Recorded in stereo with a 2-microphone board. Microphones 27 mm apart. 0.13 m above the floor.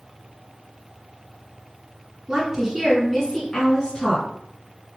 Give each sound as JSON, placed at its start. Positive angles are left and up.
{"t": 2.3, "sound": "a woman speaking", "side_deg": -25, "distance_m": 1.6}